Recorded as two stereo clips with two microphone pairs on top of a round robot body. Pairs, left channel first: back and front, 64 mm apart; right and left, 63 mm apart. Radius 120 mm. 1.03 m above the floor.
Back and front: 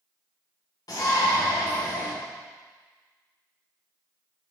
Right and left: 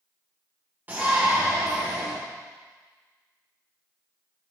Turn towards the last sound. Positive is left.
turn(degrees=155)